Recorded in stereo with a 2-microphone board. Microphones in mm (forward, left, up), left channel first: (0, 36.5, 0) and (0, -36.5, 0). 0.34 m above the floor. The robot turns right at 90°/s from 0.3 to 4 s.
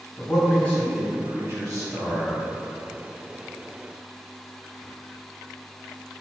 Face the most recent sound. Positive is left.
turn(degrees=100)